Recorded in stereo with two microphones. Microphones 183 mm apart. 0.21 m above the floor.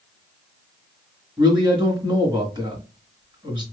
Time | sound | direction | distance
1.4 | a man speaking | 25° right (ahead or behind) | 1.9 m